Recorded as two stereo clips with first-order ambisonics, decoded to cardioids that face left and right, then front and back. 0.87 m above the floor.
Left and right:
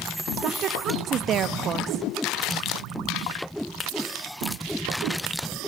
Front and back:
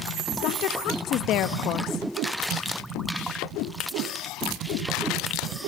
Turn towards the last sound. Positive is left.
turn(degrees=-40)